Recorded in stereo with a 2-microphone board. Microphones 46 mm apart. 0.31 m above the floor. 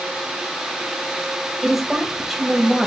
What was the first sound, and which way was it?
A woman speaking, 5° right (ahead or behind).